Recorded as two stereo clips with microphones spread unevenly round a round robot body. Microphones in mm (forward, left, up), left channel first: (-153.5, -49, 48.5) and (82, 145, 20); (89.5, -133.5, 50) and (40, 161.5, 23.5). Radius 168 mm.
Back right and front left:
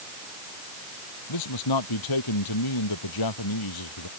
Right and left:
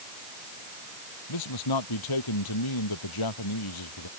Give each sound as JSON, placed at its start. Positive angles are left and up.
{"t": 1.3, "sound": "a man speaking", "azimuth_deg": -110}